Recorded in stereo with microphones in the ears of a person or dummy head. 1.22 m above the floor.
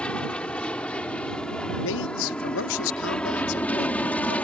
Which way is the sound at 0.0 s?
5° left (ahead or behind).